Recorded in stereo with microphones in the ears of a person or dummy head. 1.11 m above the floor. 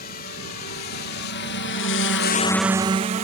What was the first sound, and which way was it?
A drone, 50° left (ahead or behind).